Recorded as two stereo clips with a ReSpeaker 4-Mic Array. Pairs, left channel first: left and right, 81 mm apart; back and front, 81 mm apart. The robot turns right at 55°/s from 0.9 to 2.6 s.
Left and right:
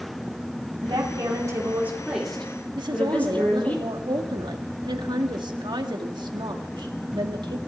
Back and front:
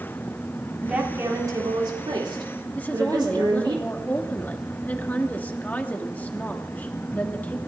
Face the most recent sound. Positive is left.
turn(degrees=-110)